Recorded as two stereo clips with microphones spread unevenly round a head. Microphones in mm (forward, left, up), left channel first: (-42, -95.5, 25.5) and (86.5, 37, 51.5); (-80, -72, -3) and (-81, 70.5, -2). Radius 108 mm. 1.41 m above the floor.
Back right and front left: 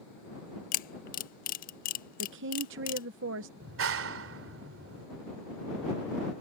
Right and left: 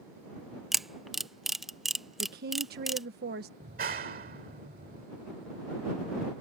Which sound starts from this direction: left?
A woman speaking, at 2.2 s.